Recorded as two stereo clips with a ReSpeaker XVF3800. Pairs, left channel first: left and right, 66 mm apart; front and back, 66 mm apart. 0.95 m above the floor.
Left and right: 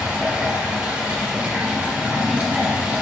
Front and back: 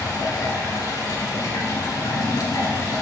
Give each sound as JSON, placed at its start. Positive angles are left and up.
{"t": 0.0, "sound": "running water", "azimuth_deg": -20, "distance_m": 2.5}